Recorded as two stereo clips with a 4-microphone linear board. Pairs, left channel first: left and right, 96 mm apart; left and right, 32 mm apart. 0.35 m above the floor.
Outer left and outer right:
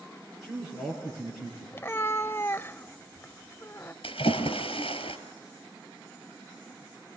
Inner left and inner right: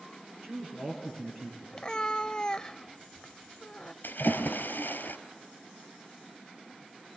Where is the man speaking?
Centre (ahead or behind), 7.5 m.